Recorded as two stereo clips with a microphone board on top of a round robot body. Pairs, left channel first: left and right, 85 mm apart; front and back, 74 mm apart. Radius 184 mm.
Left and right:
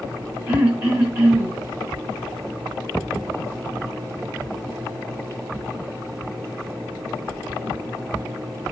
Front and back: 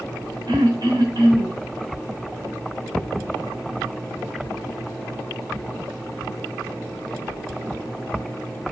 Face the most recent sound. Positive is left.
turn(degrees=-150)